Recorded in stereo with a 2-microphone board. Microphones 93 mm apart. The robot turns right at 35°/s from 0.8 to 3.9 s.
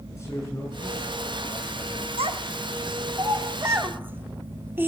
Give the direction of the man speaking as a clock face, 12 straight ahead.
7 o'clock.